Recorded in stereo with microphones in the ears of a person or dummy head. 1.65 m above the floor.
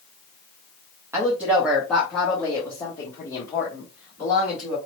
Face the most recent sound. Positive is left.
turn(degrees=30)  # may be behind; listen again after turning